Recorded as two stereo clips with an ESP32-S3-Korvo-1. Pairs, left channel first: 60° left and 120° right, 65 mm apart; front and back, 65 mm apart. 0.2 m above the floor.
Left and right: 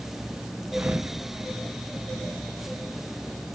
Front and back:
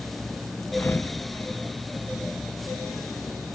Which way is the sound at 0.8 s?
55° right.